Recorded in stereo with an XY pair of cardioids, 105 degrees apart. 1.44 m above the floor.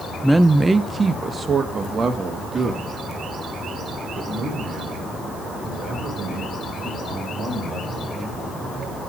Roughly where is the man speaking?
Ahead.